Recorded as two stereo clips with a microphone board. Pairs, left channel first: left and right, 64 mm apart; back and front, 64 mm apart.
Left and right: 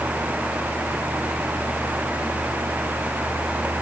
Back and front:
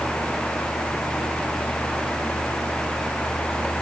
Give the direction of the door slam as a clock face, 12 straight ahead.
No door slam in this recording.